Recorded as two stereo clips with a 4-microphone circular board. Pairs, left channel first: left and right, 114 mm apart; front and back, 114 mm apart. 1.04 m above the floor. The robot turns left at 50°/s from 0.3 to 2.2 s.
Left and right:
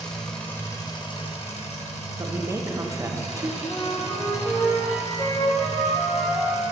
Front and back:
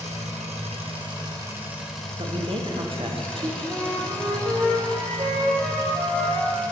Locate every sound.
0.0 s an engine running: 175° left, 1.1 m; by 6.7 s 80° left, 1.1 m
2.2 s a man speaking: 150° right, 0.7 m
3.7 s a flute: 140° left, 1.6 m